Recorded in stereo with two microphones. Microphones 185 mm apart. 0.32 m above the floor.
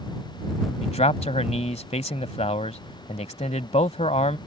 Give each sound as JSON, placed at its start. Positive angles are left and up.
{"t": 0.8, "sound": "a man speaking", "side_deg": 35}